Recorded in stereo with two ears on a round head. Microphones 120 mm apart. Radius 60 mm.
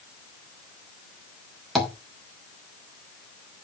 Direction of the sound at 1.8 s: Centre (ahead or behind).